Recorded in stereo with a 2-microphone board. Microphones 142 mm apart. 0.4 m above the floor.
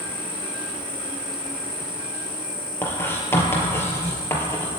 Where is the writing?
15° left (ahead or behind), 3 m.